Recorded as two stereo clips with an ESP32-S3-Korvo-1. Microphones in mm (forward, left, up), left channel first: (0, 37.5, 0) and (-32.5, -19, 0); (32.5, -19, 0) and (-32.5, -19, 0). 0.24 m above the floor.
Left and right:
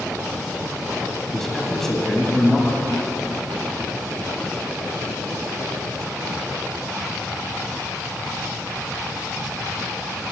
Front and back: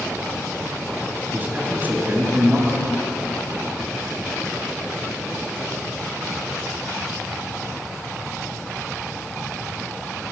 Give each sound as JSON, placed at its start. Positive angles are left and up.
{"t": 1.3, "sound": "a man speaking", "azimuth_deg": 140, "distance_m": 1.5}